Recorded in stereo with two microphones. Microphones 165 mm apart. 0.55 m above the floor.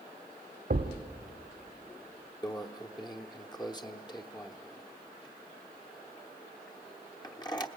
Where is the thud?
70° right (ahead or behind), 1.2 m.